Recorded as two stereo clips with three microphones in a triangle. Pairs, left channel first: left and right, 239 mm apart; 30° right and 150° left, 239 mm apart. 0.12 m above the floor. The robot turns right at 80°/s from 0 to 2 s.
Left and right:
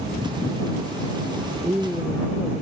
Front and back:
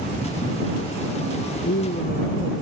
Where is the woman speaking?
20° right; by 2.6 s 10° left.